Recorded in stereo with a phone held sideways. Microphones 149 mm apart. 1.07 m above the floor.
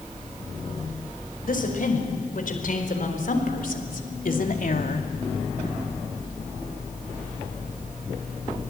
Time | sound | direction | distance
1.4 | a woman speaking | 65° left (ahead or behind) | 5.5 m